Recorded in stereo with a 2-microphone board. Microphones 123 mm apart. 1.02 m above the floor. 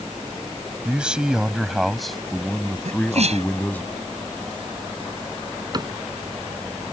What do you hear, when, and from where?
0.8 s a man speaking: 10° right (ahead or behind); by 3.9 s 15° left (ahead or behind)
2.9 s a sneeze: 60° right (ahead or behind)
5.7 s a cupboard door: 35° right (ahead or behind)